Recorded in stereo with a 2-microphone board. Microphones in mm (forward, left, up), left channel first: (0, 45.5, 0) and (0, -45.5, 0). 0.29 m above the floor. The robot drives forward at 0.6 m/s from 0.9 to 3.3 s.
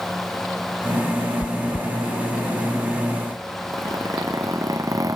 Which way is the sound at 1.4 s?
55° left (ahead or behind).